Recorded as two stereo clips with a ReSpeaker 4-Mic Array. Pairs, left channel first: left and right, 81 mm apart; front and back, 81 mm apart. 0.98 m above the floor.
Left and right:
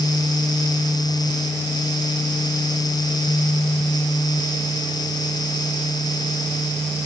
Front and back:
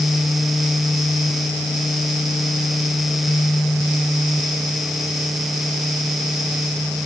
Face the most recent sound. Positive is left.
No sound to turn to.